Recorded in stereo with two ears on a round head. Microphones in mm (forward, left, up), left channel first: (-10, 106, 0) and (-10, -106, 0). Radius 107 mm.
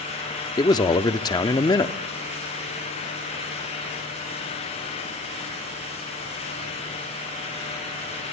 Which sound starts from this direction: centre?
A man speaking, at 0.6 s.